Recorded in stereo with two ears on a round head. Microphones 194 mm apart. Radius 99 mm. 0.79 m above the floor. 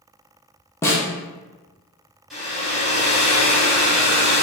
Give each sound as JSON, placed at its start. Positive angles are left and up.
{"t": 0.8, "sound": "a snare drum", "side_deg": 10, "distance_m": 0.7}
{"t": 2.3, "sound": "a hair dryer", "side_deg": 0, "distance_m": 1.6}